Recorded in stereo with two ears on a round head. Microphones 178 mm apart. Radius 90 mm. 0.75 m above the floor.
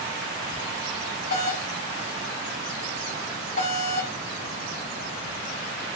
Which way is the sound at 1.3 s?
45° left (ahead or behind).